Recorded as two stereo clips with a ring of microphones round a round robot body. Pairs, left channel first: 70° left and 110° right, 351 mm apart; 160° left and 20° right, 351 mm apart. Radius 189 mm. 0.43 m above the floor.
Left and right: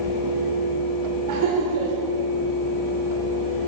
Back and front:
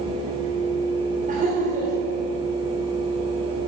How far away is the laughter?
About 1.4 m.